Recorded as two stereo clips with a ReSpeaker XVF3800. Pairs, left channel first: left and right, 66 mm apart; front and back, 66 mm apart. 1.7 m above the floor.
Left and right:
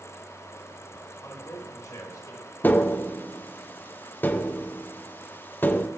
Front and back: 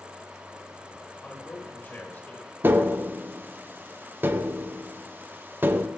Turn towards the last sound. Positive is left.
turn(degrees=135)